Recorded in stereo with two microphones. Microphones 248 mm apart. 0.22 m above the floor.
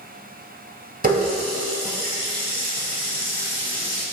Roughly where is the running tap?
Right.